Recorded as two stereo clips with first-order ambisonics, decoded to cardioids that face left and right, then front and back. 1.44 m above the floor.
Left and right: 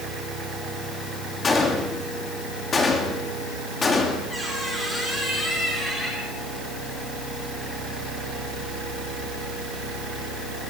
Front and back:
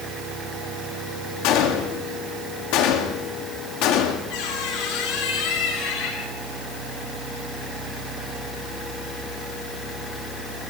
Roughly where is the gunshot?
Ahead.